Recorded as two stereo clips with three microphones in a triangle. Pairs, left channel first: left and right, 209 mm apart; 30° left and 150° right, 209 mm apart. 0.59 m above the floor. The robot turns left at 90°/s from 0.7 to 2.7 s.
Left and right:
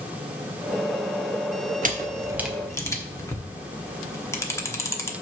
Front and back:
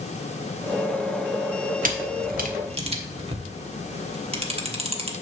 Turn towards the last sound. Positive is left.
turn(degrees=165)